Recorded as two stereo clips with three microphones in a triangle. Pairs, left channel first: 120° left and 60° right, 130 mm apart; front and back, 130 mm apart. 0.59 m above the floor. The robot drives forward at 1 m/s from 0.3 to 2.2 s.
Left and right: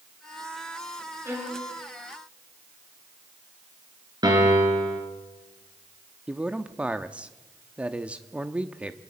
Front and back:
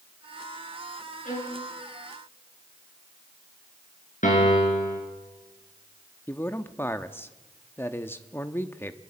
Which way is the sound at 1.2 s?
10° left.